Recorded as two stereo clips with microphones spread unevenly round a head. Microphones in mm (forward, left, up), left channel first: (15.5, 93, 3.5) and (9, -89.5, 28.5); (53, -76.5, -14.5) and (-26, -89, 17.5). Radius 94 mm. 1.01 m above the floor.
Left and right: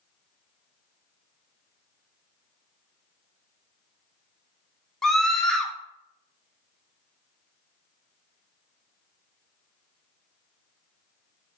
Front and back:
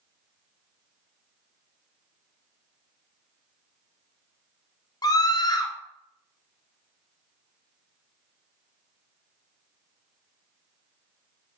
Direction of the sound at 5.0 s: 5° left.